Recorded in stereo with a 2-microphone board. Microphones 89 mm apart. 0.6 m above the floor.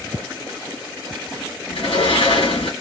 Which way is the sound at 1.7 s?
85° left.